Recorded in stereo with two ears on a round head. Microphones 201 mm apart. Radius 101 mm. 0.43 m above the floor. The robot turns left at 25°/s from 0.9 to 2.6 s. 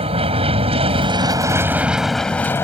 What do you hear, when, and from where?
0.0 s an aircraft: 150° right; by 2.6 s 170° left